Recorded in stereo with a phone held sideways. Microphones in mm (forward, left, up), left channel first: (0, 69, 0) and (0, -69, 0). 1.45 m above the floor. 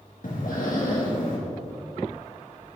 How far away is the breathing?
About 1.8 m.